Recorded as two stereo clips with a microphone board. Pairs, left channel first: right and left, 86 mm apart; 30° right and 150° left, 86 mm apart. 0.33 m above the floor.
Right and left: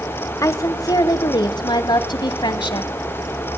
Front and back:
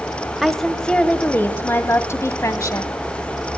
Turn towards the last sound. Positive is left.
turn(degrees=-75)